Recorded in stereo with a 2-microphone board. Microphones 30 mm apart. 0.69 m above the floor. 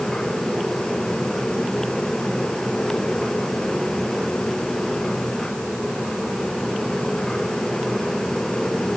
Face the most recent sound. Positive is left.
No sound to turn to.